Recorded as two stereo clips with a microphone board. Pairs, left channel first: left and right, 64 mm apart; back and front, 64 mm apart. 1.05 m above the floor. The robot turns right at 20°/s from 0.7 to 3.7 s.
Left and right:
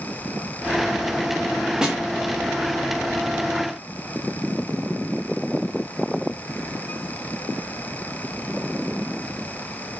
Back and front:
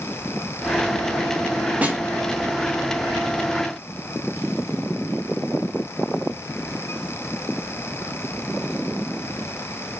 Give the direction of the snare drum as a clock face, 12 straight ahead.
1 o'clock.